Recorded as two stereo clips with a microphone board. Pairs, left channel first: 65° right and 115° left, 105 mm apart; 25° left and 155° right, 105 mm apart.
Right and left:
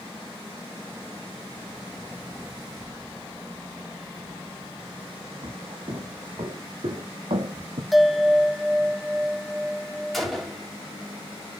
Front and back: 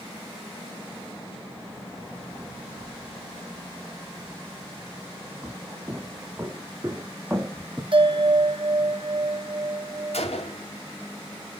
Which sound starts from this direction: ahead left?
A gunshot, at 10.1 s.